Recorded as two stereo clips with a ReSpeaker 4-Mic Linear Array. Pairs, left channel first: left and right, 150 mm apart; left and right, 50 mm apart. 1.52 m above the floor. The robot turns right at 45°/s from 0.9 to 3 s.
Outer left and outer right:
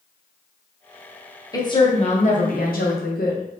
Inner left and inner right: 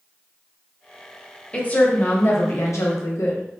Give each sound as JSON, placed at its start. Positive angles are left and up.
{"t": 1.5, "sound": "a woman speaking", "azimuth_deg": 25, "distance_m": 0.9}